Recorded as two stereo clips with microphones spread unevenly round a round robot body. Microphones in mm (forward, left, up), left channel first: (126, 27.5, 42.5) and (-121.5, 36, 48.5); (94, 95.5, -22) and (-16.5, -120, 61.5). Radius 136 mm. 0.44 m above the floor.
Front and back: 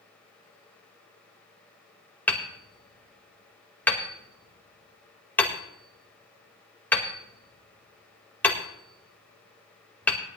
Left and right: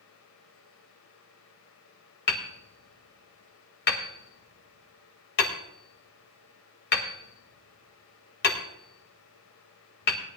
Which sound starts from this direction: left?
Hammering, at 2.3 s.